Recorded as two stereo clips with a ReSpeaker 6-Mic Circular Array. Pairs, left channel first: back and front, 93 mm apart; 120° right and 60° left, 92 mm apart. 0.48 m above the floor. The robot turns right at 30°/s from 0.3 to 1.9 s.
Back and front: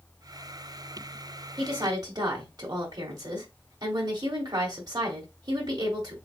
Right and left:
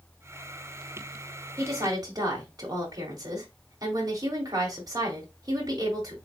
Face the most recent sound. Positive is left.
turn(degrees=30)